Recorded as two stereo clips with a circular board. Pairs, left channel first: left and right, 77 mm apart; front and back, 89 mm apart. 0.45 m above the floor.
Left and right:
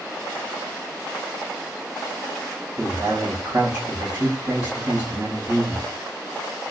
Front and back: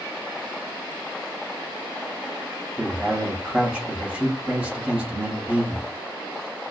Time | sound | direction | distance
2.8 | a man speaking | 115° right | 1.1 m